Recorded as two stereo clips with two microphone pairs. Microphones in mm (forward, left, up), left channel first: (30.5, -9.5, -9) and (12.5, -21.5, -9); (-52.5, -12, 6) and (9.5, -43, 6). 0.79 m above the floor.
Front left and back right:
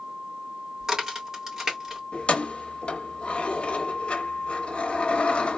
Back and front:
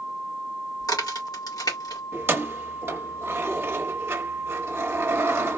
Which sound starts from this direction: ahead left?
Keys jangling, at 2.1 s.